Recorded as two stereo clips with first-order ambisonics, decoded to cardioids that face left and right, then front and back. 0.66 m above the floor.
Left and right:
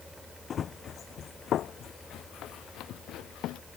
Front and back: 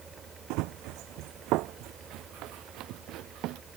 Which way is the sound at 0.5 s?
155° left.